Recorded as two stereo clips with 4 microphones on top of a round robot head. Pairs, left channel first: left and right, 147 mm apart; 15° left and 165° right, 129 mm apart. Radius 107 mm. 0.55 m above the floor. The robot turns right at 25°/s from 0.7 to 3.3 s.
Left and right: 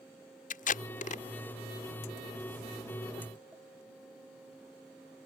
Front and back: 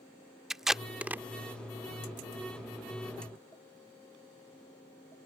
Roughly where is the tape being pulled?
Left.